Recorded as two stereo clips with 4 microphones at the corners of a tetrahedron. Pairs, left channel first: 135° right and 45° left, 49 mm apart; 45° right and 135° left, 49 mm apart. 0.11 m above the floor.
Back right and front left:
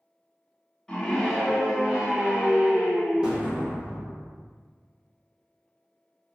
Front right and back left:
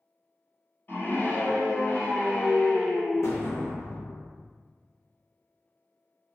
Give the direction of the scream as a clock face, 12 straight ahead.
2 o'clock.